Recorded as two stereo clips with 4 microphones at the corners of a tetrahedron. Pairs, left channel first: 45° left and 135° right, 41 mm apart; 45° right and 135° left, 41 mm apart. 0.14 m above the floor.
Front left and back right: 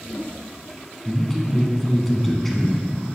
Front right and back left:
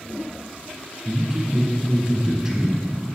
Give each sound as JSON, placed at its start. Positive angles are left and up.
{"t": 1.1, "sound": "a man speaking", "azimuth_deg": 120, "distance_m": 1.0}